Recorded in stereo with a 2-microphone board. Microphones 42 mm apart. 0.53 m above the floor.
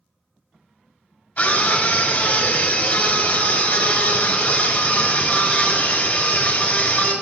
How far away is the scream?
About 2.5 m.